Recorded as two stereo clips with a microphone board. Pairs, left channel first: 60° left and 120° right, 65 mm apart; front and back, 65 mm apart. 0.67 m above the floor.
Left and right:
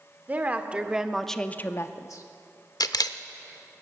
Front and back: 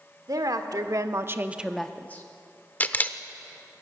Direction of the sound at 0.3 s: Straight behind.